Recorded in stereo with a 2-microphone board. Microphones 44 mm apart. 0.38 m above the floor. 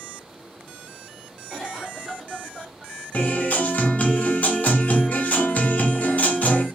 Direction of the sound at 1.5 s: 10° left (ahead or behind).